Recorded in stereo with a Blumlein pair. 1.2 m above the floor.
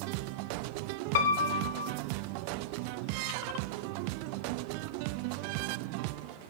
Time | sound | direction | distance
1.1 | a piano | 55° left | 0.9 m